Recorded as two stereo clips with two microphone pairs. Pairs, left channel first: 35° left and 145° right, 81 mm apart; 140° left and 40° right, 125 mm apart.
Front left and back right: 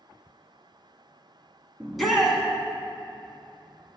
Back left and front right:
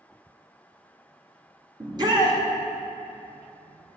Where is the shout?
55° right, 1.5 m.